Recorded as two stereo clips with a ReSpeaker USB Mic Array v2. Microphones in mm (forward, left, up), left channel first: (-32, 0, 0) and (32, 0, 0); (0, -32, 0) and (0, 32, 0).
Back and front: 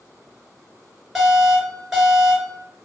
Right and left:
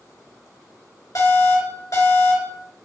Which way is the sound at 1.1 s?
85° right.